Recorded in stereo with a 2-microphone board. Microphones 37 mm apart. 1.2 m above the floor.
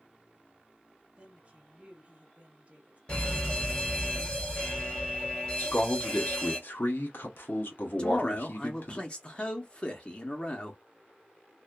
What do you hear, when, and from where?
1.2 s a woman speaking: 30° right (ahead or behind), 1.2 m
3.1 s a fire alarm: 25° left (ahead or behind), 1.9 m
5.6 s a man speaking: 60° left (ahead or behind), 1.0 m
8.0 s a man speaking: 30° left (ahead or behind), 0.6 m